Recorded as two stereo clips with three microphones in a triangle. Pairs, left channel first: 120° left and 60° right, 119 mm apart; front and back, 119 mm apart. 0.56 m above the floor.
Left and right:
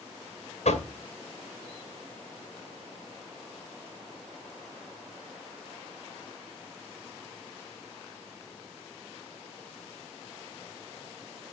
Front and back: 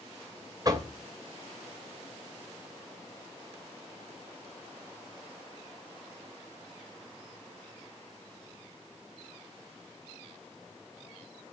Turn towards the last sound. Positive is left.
turn(degrees=125)